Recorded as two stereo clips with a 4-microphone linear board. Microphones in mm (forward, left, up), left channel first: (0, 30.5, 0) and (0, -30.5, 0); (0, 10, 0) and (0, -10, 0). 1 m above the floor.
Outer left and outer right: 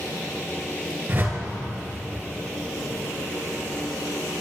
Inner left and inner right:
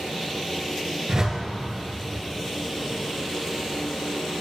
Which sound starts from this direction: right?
A whoosh, at 1.1 s.